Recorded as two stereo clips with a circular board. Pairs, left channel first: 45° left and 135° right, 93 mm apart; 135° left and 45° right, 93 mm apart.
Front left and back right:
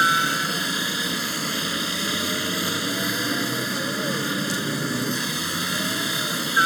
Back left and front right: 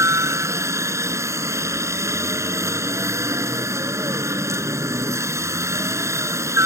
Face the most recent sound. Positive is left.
turn(degrees=-40)